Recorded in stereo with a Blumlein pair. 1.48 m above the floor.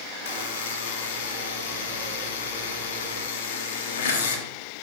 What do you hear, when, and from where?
0.2 s a buzzer: 60° left, 0.6 m